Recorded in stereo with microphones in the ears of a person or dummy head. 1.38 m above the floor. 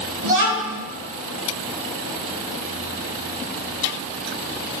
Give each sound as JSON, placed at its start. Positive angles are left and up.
{"t": 0.2, "sound": "a child speaking", "side_deg": -60, "distance_m": 1.1}